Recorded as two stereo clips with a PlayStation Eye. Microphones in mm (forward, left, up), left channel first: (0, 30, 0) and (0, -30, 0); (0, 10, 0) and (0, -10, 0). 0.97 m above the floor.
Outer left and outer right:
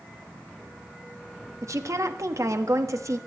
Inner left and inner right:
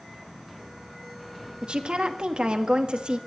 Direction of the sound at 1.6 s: 60° right (ahead or behind).